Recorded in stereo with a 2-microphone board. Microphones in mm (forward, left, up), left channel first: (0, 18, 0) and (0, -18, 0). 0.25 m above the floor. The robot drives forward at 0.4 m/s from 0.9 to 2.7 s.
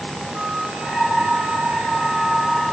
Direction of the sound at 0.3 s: 45° right (ahead or behind).